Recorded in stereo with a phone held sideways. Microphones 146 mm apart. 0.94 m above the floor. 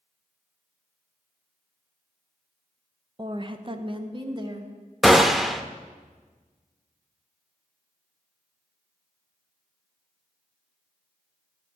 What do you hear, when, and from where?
3.2 s a woman speaking: 30° right (ahead or behind), 0.6 m
5.0 s a gunshot: centre (ahead or behind), 0.5 m